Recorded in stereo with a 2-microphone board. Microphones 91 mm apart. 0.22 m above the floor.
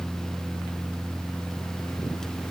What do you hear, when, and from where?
Only background noise.